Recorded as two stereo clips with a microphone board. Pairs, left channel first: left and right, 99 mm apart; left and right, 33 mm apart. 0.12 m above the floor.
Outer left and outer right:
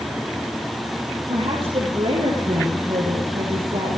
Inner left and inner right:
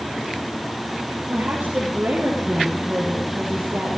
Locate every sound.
1.3 s a woman speaking: 60° right (ahead or behind), 3.5 m; by 4.0 s 70° right (ahead or behind), 4 m